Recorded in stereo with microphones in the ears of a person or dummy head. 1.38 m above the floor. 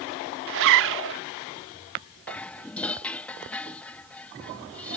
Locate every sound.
0.5 s a zipper: 60° right (ahead or behind)
2.3 s dishes clattering: 5° left (ahead or behind)